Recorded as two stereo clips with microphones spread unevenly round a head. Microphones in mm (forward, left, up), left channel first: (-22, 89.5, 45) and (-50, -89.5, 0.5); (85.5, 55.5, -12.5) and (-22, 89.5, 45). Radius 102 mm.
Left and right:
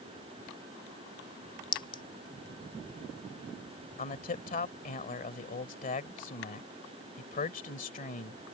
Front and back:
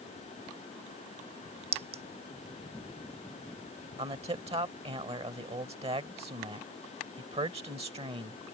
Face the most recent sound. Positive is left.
turn(degrees=125)